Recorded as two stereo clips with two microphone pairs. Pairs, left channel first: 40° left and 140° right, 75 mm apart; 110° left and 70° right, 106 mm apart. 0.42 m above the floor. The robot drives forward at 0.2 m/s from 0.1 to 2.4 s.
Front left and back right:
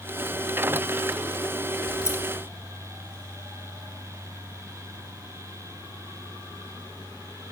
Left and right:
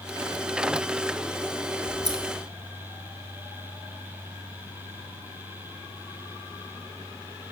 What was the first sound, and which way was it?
Scissors, 95° left.